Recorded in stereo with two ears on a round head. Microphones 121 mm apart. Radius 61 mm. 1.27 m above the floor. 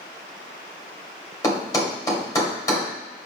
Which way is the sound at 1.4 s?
25° left (ahead or behind).